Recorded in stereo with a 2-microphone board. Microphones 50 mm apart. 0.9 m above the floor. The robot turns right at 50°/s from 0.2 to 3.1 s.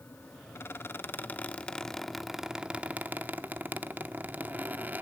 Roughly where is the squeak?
Left.